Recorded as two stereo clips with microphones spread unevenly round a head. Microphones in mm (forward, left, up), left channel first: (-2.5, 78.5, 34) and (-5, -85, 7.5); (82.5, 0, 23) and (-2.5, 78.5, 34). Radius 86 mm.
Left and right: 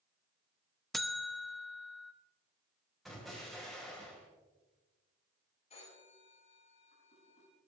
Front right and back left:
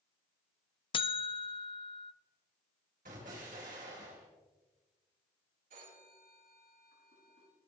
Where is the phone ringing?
140° left, 5.5 m.